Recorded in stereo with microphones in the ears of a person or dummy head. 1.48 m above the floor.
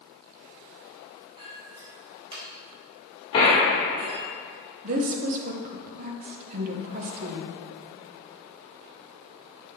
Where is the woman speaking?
50° right (ahead or behind), 1.1 m.